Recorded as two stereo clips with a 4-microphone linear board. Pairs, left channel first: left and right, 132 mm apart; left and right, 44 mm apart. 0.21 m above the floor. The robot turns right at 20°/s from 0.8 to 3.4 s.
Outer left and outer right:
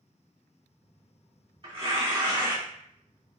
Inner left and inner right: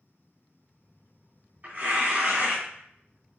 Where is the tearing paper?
95° right, 2 m; by 3.4 s 55° right, 2 m.